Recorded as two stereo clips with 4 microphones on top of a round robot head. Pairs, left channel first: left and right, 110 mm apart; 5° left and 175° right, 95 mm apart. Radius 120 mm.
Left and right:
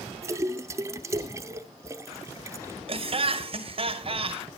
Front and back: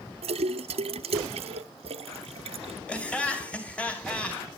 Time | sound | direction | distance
0.2 | a splash | 155° right | 0.6 m
2.9 | laughter | 70° right | 2.5 m